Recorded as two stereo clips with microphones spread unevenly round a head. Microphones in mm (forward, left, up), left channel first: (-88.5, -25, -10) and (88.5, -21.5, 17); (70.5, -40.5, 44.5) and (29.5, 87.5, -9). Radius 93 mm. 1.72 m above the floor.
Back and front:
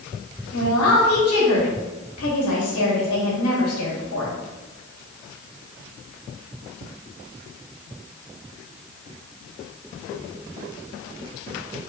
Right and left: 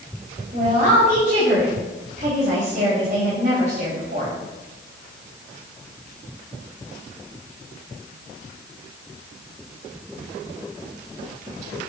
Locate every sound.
0.5 s a woman speaking: 165° left, 3 m